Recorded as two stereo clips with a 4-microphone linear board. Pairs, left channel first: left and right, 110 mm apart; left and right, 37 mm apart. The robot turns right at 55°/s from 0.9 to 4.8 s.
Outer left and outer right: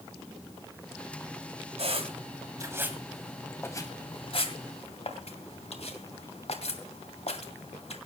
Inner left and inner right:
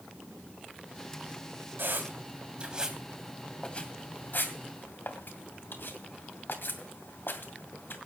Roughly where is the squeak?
Right.